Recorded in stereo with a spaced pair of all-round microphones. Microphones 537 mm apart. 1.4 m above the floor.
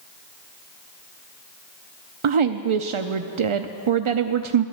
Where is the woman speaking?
70° right (ahead or behind), 0.6 m.